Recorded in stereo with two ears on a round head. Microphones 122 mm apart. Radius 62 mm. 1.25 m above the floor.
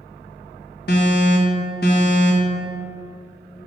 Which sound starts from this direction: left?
An alarm, at 0.9 s.